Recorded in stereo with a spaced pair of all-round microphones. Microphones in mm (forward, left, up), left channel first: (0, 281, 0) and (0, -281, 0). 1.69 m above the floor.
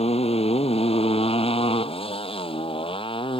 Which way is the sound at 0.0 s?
10° left (ahead or behind).